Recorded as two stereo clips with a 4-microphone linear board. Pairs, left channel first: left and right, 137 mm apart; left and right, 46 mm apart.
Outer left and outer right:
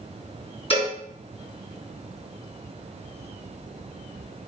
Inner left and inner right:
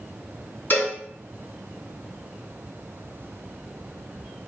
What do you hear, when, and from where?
0.7 s a cowbell: 45° left (ahead or behind), 2 m